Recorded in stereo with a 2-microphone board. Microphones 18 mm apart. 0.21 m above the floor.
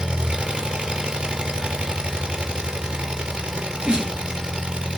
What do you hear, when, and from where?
0.0 s an engine running: 70° right (ahead or behind), 3.5 m
3.5 s a sneeze: 60° right (ahead or behind), 4 m